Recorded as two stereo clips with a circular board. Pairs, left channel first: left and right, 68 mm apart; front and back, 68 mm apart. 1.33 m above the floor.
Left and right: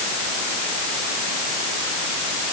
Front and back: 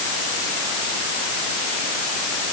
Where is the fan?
I don't hear a fan.